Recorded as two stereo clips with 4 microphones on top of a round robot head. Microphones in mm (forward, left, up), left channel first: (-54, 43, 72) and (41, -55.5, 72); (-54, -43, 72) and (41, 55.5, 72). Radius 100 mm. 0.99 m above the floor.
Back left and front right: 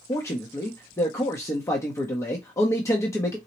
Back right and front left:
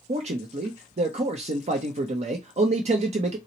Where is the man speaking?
70° left, 0.7 m.